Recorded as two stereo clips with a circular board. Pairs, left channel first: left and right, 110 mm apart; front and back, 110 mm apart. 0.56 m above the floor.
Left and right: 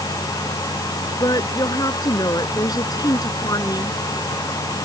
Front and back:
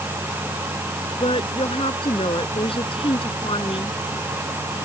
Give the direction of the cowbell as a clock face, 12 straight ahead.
No cowbell in this recording.